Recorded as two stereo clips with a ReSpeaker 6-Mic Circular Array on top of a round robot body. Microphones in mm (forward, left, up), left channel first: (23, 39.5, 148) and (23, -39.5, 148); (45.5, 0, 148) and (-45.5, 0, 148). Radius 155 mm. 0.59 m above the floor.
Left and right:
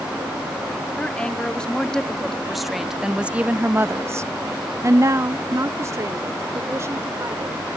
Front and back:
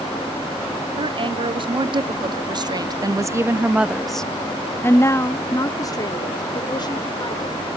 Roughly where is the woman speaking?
Behind.